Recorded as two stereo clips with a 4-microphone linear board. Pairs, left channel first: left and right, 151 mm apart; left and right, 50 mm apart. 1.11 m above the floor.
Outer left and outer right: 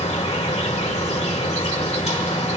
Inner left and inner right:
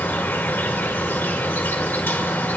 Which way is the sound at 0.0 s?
45° left (ahead or behind).